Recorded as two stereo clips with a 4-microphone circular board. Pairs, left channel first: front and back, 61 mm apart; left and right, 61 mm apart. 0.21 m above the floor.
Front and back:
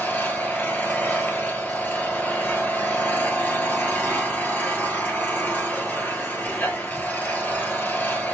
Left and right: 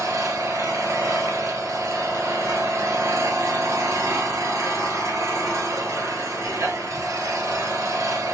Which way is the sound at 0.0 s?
60° right.